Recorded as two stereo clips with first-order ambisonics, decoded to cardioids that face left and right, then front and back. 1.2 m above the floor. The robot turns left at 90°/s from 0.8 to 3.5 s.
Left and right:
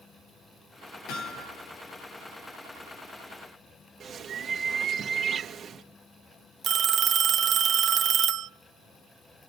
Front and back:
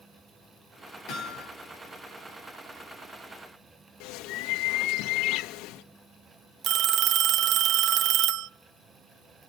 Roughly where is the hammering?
Ahead left.